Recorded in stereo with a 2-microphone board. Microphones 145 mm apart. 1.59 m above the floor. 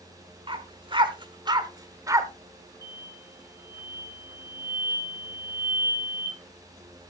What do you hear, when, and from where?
0.5 s a dog barking: 40° right (ahead or behind), 1.5 m; by 2.3 s 20° right (ahead or behind), 1.6 m
2.8 s an explosion: 20° left (ahead or behind), 4.5 m